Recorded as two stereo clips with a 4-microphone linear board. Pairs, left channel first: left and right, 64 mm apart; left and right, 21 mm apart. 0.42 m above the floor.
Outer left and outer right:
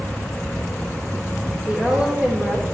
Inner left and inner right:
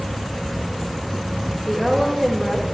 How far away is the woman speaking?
About 1.2 m.